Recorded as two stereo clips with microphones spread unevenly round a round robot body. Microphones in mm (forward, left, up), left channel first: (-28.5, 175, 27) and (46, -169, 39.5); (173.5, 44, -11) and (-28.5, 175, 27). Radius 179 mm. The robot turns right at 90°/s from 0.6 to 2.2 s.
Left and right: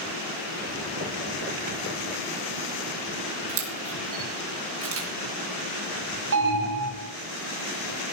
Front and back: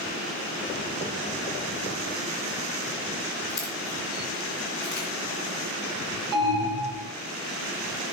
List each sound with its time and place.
3.5 s a camera shutter: 130° right, 3 m
6.3 s an alarm: 130° right, 3 m